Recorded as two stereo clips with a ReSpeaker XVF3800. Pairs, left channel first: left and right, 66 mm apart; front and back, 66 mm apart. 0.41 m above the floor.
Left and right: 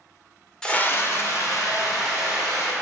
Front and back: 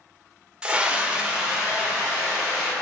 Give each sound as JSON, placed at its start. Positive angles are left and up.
{"t": 0.6, "sound": "a scream", "azimuth_deg": 145, "distance_m": 0.8}